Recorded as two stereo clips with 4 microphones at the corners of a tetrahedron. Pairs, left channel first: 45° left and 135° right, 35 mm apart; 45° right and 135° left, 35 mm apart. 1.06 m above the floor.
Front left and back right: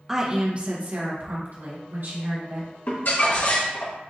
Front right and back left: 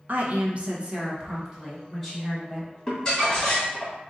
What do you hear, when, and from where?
0.1 s a woman speaking: 145° left, 0.9 m; by 2.7 s 140° right, 2.5 m
2.9 s crumpling: 25° left, 2 m